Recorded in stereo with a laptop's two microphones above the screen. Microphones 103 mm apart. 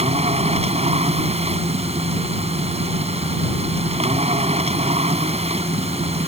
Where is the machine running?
85° right.